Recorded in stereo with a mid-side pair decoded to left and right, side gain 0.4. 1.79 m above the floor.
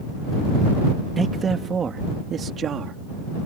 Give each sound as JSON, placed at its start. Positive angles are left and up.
{"t": 1.2, "sound": "a man speaking", "azimuth_deg": -45}